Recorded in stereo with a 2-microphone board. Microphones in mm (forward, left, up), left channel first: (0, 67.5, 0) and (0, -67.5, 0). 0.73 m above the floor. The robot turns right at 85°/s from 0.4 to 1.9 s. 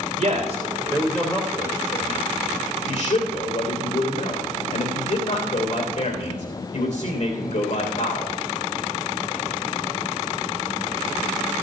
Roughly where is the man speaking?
Ahead right.